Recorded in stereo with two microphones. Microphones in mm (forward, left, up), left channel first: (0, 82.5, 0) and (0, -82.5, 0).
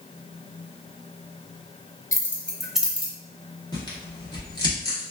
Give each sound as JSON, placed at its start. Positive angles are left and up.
{"t": 2.1, "sound": "keys jangling", "side_deg": 20, "distance_m": 0.6}
{"t": 3.7, "sound": "tearing paper", "side_deg": 25, "distance_m": 1.2}